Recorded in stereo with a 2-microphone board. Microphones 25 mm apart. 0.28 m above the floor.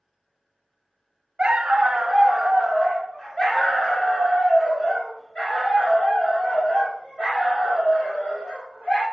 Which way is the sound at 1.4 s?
35° right (ahead or behind).